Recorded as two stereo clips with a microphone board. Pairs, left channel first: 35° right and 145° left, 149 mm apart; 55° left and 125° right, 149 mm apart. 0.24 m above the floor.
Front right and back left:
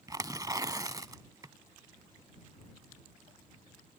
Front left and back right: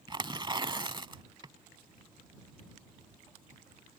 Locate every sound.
0.1 s tearing paper: 165° right